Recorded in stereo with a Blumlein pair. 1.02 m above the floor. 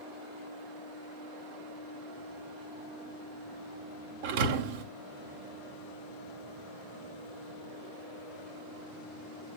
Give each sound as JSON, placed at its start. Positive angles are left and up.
{"t": 4.2, "sound": "a thud", "azimuth_deg": -50, "distance_m": 1.8}